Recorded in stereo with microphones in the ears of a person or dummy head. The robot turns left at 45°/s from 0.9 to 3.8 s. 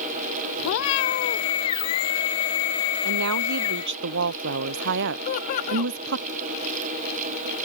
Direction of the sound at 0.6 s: 65° left (ahead or behind).